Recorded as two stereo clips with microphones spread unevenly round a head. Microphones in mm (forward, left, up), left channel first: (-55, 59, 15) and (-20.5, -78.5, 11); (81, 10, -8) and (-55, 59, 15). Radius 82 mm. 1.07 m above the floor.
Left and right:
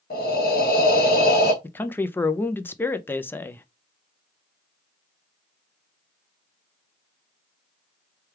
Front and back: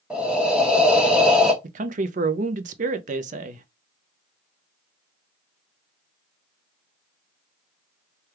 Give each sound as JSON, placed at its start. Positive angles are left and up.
{"t": 0.1, "sound": "breathing", "azimuth_deg": 75, "distance_m": 1.1}
{"t": 1.6, "sound": "a man speaking", "azimuth_deg": 175, "distance_m": 0.5}